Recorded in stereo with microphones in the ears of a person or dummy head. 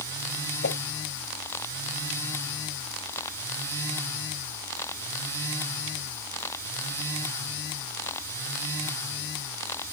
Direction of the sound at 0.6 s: 60° left (ahead or behind).